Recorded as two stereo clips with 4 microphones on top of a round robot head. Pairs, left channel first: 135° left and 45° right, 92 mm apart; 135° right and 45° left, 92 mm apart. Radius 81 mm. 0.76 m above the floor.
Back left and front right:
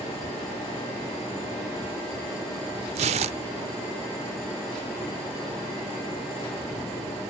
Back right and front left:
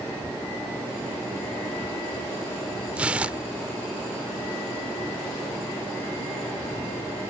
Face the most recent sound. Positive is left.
turn(degrees=-35)